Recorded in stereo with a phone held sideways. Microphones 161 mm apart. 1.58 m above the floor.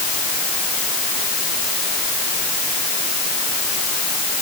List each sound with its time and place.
Only background noise.